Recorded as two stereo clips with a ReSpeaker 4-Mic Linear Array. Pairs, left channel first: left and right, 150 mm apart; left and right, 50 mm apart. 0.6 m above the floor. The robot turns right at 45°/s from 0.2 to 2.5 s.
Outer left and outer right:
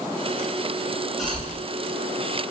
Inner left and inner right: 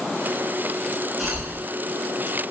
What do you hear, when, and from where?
1.2 s a cough: centre (ahead or behind), 1.1 m; by 1.5 s 15° left (ahead or behind), 1.1 m